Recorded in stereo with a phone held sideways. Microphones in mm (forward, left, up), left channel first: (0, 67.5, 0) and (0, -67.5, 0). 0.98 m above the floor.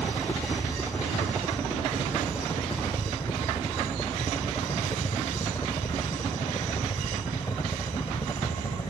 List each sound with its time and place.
0.0 s a helicopter: 15° left (ahead or behind); by 8.9 s 30° left (ahead or behind)